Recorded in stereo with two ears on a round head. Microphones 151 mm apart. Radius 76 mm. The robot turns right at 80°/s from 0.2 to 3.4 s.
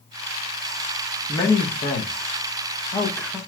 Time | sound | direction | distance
1.3 | a man speaking | 15° left (ahead or behind) | 0.8 m